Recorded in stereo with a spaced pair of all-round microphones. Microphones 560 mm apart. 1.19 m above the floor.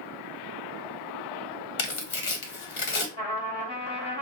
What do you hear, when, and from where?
1.8 s tearing paper: 60° left (ahead or behind), 0.8 m
3.2 s a trumpet: 45° left (ahead or behind), 1.5 m